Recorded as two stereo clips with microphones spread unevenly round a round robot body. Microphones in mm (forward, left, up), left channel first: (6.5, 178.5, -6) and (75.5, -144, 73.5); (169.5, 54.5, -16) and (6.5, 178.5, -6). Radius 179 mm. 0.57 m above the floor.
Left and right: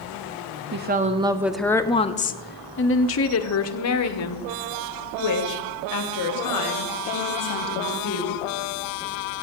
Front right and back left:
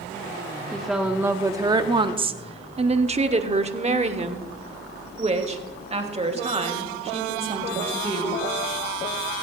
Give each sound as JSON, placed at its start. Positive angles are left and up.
{"t": 0.7, "sound": "a woman speaking", "azimuth_deg": -120, "distance_m": 0.8}